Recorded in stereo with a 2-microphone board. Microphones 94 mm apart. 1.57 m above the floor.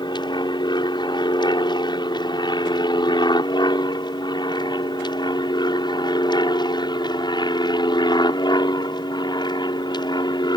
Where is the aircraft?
50° left (ahead or behind).